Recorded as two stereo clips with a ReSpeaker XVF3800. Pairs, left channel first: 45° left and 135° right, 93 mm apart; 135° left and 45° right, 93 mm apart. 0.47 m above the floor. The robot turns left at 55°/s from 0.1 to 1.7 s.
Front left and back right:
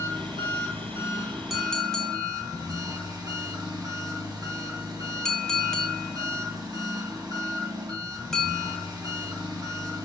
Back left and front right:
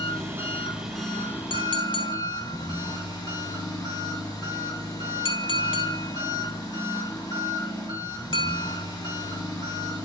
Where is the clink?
140° left, 0.9 m; by 8.9 s 125° left, 0.9 m.